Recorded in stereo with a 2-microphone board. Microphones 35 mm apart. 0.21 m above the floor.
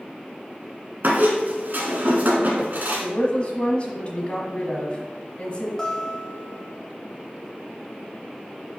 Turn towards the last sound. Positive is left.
turn(degrees=15)  # may be behind; listen again after turning